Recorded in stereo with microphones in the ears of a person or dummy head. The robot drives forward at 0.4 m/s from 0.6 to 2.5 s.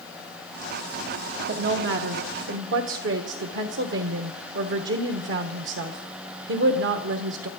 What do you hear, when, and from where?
1.5 s a woman speaking: 65° right (ahead or behind), 1.3 m; by 7.5 s 70° right (ahead or behind), 1.2 m